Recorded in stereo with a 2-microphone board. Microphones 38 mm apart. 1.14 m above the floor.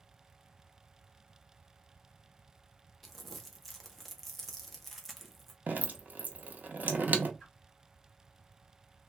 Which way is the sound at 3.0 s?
5° left (ahead or behind).